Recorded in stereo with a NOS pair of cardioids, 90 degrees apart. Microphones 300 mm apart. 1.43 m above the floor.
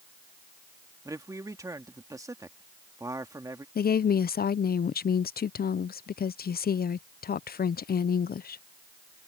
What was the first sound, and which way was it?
A man speaking, 10° right.